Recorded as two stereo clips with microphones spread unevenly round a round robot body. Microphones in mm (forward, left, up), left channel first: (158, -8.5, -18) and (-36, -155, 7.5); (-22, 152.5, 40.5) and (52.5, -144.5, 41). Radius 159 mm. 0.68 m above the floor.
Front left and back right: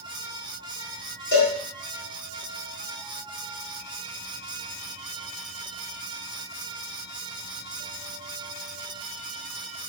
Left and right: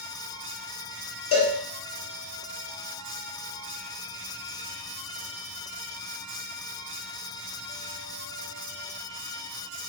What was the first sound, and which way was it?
A cowbell, 70° left.